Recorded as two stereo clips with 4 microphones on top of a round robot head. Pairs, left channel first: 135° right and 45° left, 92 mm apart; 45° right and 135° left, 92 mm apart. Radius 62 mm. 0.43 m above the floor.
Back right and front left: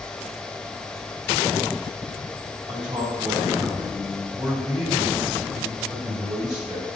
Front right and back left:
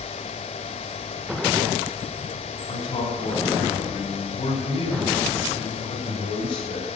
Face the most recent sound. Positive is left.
turn(degrees=-30)